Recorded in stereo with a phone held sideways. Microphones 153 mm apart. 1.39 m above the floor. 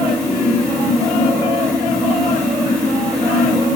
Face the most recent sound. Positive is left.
turn(degrees=5)  # may be behind; listen again after turning